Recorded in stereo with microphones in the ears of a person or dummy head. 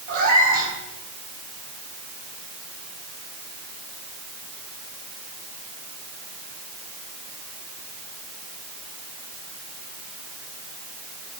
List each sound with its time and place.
0.1 s a cat meowing: 50° right (ahead or behind), 5.5 m